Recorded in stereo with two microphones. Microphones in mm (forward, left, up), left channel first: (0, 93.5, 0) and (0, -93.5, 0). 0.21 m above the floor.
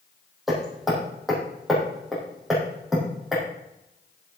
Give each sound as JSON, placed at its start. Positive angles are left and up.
{"t": 0.5, "sound": "hammering", "side_deg": 0, "distance_m": 5.0}